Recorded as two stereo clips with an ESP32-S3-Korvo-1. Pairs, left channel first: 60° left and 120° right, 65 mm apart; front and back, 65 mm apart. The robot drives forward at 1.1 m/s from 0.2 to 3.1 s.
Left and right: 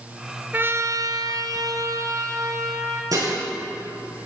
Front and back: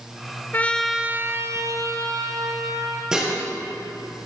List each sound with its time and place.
0.5 s a trumpet: 60° right, 0.7 m; by 3.0 s 165° right, 2.5 m
3.1 s dishes clattering: 100° right, 4 m